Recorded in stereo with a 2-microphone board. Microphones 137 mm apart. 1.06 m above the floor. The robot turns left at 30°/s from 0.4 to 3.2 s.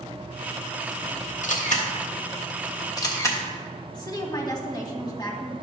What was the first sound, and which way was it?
A camera shutter, 65° left (ahead or behind).